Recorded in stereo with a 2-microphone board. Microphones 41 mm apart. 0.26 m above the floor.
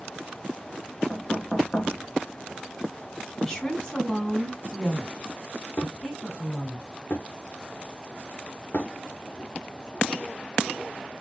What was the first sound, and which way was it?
Knocking, 20° left (ahead or behind).